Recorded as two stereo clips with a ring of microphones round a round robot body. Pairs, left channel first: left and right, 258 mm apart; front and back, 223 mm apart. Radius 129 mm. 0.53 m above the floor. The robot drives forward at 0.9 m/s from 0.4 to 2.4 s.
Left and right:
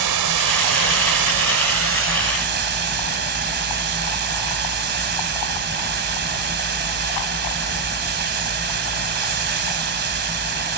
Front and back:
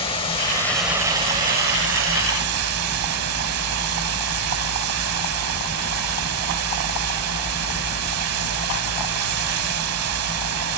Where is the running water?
70° right, 1.2 m; by 10.8 s 145° right, 1.8 m.